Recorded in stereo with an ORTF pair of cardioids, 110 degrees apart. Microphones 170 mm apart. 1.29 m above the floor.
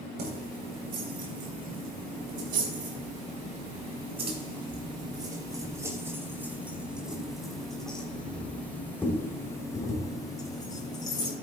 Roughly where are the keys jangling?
Right.